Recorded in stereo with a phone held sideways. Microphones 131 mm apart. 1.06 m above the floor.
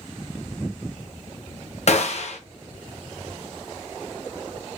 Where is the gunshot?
55° left (ahead or behind), 0.5 m.